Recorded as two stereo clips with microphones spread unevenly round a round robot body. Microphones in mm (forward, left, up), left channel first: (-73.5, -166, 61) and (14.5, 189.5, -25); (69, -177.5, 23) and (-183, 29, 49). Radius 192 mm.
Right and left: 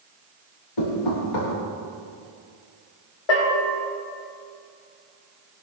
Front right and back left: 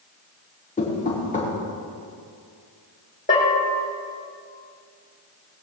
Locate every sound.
0.8 s knocking: 105° right, 6.5 m
3.3 s a bell: 105° right, 6 m